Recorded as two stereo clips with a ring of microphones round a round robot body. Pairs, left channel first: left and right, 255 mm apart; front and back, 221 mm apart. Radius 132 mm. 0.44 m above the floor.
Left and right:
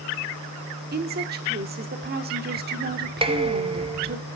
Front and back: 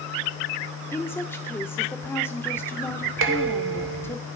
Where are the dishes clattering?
160° right, 1.1 m.